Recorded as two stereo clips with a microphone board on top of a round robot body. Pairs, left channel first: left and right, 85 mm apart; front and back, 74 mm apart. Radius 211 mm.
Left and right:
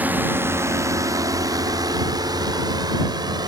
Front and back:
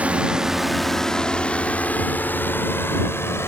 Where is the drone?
130° right; by 3.5 s 55° right.